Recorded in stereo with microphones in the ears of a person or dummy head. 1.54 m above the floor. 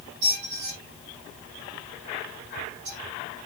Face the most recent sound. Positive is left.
turn(degrees=-65)  # may be behind; listen again after turning